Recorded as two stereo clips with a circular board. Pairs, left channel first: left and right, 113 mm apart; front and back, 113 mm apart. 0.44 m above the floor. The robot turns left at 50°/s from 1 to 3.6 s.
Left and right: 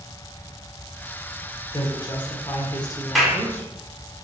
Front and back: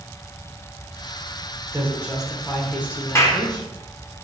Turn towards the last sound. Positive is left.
turn(degrees=-20)